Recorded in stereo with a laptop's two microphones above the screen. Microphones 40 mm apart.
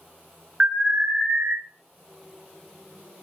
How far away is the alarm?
About 0.7 m.